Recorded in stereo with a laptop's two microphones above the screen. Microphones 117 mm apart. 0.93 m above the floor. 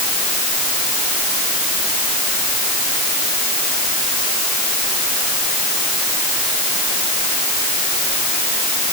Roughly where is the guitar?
I don't hear a guitar.